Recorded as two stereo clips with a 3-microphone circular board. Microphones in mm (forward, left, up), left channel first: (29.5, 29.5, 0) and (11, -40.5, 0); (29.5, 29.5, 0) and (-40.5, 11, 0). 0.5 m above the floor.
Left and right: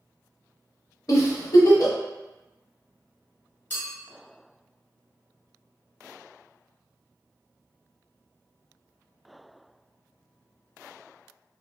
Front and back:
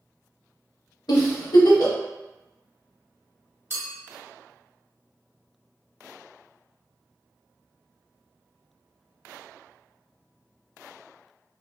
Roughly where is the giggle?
Ahead left.